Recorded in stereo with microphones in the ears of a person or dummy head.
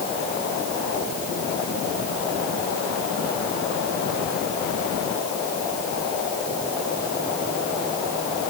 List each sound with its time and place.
Only background noise.